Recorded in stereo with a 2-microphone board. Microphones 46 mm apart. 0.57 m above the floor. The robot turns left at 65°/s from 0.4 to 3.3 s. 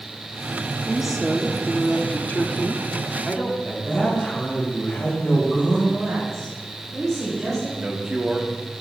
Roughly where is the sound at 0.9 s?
Behind.